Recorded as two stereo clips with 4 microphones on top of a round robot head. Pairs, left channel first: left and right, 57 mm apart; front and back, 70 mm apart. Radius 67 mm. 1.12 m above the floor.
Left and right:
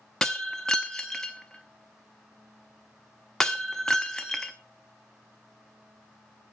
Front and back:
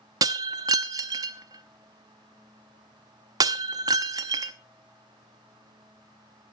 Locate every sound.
0.2 s breaking glass: 175° left, 0.6 m